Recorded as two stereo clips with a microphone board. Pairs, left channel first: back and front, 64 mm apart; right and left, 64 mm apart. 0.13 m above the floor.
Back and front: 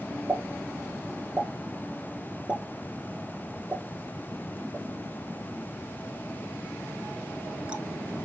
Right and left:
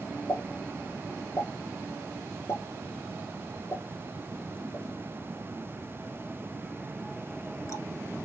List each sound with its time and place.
0.3 s a pop: 70° right, 0.8 m